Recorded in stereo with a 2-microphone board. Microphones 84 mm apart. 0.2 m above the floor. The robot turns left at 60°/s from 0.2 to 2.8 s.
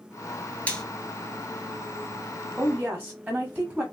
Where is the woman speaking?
10° right (ahead or behind), 1.0 m; by 3.8 s 15° right (ahead or behind), 1.0 m.